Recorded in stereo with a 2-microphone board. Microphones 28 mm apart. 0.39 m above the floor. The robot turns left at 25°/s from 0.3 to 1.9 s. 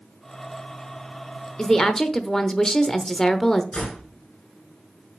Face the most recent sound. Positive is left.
turn(degrees=50)  # may be behind; listen again after turning